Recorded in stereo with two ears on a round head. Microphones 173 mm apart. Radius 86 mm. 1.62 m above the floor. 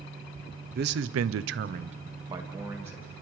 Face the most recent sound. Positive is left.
turn(degrees=-10)  # may be behind; listen again after turning